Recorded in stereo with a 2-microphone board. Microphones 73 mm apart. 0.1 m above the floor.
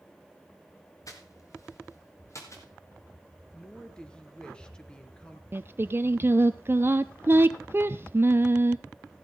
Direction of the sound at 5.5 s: 30° right (ahead or behind).